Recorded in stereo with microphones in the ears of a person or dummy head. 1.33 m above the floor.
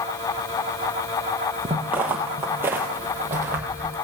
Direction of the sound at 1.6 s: 10° right (ahead or behind).